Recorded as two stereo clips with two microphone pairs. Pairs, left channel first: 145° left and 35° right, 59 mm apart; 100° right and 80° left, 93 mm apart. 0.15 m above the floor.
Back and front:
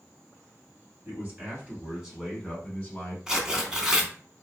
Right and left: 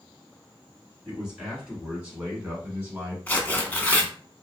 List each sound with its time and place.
1.1 s a man speaking: straight ahead, 1.7 m; by 3.2 s 135° left, 1.3 m
3.3 s tearing paper: 85° right, 0.6 m